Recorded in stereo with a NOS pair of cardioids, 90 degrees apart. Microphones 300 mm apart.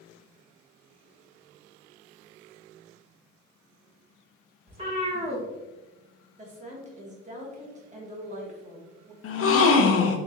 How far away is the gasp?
About 0.7 m.